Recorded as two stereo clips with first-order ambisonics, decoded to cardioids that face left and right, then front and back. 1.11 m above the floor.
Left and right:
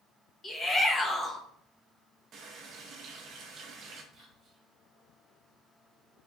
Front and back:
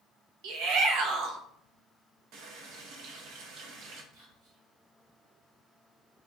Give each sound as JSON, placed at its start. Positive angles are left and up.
{"t": 0.4, "sound": "a shout", "azimuth_deg": 165, "distance_m": 0.8}
{"t": 2.3, "sound": "a running tap", "azimuth_deg": -145, "distance_m": 0.6}
{"t": 4.1, "sound": "whispering", "azimuth_deg": -155, "distance_m": 1.4}